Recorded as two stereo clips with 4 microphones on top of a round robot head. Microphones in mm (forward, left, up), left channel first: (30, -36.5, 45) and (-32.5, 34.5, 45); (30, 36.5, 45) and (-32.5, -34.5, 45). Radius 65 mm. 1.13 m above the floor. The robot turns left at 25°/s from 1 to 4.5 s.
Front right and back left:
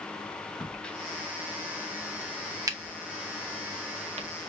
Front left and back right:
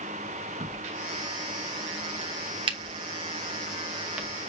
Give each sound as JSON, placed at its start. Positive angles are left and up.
{"t": 0.6, "sound": "a crack", "azimuth_deg": -130, "distance_m": 0.9}